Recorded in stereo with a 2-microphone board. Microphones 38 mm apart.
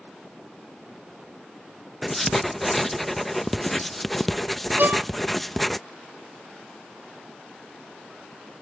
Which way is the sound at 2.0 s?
5° left (ahead or behind).